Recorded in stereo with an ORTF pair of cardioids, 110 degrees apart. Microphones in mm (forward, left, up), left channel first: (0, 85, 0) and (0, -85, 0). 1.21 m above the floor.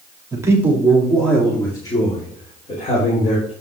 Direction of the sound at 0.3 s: 20° right.